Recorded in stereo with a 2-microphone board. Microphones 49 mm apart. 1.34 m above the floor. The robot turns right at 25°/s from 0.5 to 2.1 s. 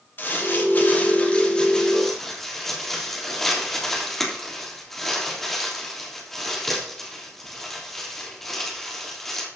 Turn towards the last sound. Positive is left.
turn(degrees=5)  # may be behind; listen again after turning